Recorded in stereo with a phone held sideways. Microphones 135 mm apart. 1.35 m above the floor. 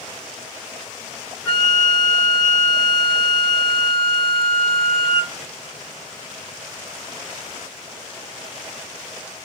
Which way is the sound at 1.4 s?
30° right (ahead or behind).